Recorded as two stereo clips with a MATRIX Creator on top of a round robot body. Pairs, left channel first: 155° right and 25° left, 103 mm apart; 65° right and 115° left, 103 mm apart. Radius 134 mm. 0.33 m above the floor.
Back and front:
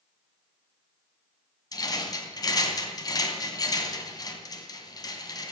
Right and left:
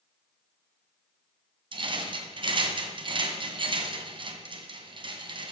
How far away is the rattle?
About 2 m.